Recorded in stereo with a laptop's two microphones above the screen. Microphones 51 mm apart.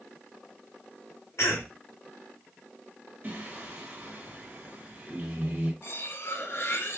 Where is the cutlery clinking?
50° left (ahead or behind), 0.6 m.